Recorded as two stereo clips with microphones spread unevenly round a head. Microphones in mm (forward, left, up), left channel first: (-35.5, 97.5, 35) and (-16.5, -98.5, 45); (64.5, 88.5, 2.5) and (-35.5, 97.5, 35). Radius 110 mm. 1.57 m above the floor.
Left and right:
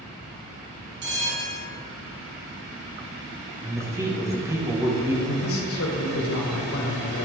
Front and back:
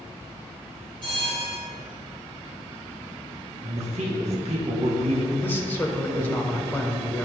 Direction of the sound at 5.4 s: 70° left.